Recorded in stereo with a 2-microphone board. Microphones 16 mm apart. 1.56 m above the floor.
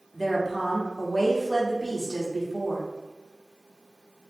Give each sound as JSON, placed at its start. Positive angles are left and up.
{"t": 0.1, "sound": "a woman speaking", "side_deg": 5, "distance_m": 1.1}